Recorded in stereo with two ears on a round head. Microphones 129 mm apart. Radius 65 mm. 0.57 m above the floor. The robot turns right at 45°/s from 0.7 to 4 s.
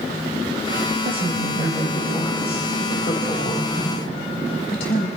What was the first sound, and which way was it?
A woman speaking, 50° right.